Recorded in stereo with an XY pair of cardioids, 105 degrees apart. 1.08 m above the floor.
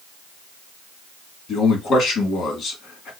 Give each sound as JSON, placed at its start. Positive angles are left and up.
{"t": 1.5, "sound": "a man speaking", "azimuth_deg": 65, "distance_m": 2.5}